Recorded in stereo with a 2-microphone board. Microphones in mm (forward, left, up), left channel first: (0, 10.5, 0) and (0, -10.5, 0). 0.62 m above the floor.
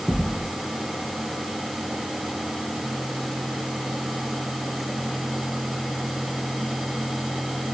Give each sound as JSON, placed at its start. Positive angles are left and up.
{"t": 0.1, "sound": "a thud", "side_deg": 5, "distance_m": 3.0}